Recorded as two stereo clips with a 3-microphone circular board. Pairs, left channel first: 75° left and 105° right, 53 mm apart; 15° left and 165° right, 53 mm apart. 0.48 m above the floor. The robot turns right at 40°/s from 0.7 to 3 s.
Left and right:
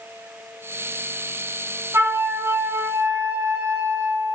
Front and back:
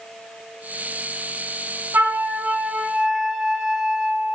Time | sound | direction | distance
1.9 | a flute | 120° right | 3 m